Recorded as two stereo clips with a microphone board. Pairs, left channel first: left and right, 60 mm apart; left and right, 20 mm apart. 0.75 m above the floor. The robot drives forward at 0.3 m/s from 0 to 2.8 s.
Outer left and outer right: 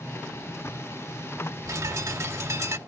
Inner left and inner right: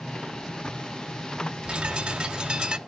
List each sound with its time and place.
1.6 s a bird: 60° right (ahead or behind); by 2.8 s 50° right (ahead or behind)